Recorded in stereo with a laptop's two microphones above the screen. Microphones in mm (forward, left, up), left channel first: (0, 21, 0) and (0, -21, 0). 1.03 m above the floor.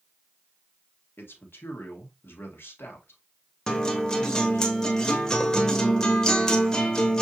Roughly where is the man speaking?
Left.